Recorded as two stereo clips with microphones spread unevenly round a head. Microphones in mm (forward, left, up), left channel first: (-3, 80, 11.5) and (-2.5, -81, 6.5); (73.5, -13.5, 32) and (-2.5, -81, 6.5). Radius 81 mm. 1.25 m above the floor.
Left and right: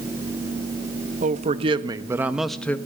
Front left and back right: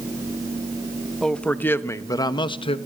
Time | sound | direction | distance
1.2 | a man speaking | 40° right | 1.5 m